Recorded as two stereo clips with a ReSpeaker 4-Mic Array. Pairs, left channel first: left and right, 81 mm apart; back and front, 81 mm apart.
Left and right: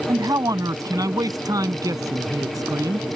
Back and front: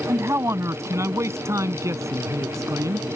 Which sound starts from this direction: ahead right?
A man speaking, at 0.1 s.